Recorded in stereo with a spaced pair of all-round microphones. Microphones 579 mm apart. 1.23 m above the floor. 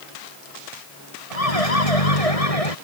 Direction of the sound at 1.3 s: 75° left (ahead or behind).